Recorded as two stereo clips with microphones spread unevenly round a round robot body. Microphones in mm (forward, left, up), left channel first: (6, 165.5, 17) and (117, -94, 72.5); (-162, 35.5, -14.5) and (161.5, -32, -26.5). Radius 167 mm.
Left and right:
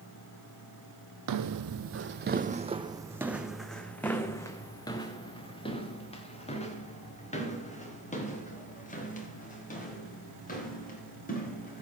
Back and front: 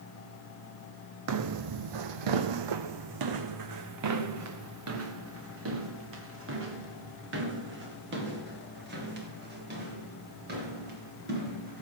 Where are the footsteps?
55° right, 0.8 m; by 11.8 s 50° left, 5.5 m.